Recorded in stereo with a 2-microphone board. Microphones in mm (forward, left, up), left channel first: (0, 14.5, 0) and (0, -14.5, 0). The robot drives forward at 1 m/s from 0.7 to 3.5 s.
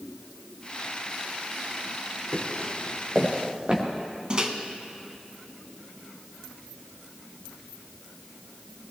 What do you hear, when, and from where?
2.3 s footsteps: 55° right (ahead or behind), 4 m; by 3.8 s 35° right (ahead or behind), 3.5 m
4.3 s a microwave: 30° right (ahead or behind), 1.3 m